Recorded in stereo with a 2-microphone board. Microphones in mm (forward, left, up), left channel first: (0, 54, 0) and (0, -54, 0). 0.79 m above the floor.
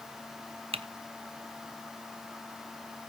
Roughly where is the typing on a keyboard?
Right.